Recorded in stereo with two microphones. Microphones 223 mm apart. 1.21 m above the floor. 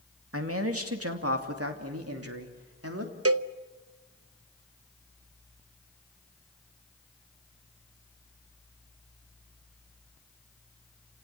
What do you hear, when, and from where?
0.3 s a man speaking: 70° right (ahead or behind), 2.5 m; by 3.1 s 80° right, 3.5 m
3.2 s a cowbell: 75° right (ahead or behind), 0.7 m